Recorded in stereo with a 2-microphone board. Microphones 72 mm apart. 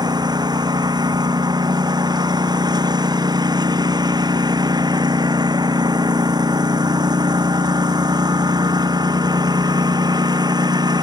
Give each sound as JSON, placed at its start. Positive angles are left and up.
{"t": 0.0, "sound": "a lawn mower", "side_deg": -80}